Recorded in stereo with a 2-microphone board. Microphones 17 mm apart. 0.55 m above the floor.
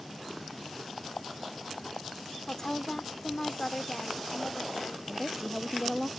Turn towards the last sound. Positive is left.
turn(degrees=-10)  # may be behind; listen again after turning